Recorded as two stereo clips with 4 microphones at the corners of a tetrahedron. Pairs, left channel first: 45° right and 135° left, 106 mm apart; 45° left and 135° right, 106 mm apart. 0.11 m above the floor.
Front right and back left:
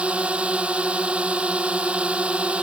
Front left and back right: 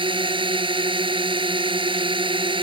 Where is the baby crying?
I don't hear a baby crying.